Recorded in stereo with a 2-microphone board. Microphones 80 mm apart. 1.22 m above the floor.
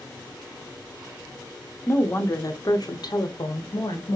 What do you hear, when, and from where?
1.9 s a woman speaking: 25° left (ahead or behind), 0.9 m; by 4.2 s 70° left (ahead or behind), 1.4 m